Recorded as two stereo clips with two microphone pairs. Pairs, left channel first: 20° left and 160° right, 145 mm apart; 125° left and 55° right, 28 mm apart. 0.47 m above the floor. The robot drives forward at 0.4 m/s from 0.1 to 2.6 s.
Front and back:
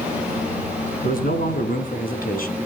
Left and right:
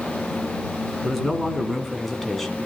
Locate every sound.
1.0 s a man speaking: 35° left, 4 m; by 2.7 s 40° left, 3.5 m